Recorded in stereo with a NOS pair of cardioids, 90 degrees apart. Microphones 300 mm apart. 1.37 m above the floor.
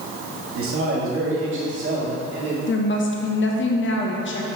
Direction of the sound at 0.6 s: 50° right.